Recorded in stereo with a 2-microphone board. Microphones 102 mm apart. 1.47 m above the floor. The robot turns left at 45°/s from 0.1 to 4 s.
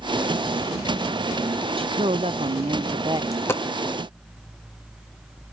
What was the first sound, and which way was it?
A woman speaking, 65° right.